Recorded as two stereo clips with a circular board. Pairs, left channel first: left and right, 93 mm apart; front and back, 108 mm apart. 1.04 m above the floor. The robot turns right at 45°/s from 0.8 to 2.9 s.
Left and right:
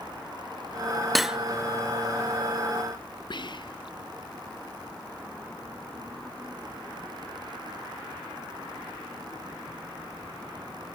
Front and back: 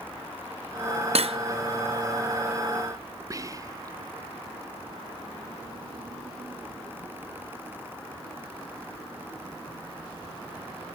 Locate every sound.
1.1 s cutlery clinking: straight behind, 0.6 m; by 1.4 s 170° right, 0.6 m
3.3 s whispering: 125° left, 0.7 m